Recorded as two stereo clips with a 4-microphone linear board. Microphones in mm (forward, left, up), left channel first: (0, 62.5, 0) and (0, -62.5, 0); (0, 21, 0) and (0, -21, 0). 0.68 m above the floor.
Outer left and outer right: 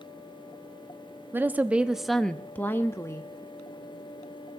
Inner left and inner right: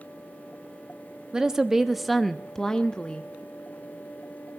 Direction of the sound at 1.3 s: 15° right (ahead or behind).